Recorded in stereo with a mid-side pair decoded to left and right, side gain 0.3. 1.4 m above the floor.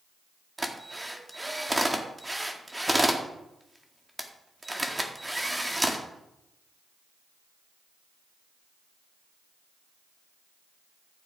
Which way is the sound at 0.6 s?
15° right.